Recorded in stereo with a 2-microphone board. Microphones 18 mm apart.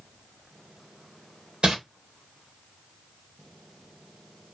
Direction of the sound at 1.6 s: 55° right (ahead or behind).